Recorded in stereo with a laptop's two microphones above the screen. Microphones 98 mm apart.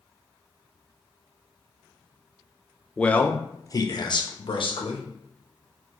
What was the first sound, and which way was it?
A man speaking, 10° left (ahead or behind).